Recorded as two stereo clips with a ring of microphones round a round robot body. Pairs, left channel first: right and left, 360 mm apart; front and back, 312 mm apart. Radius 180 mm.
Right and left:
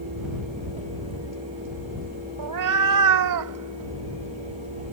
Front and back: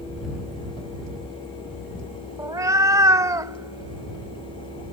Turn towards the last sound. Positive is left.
turn(degrees=105)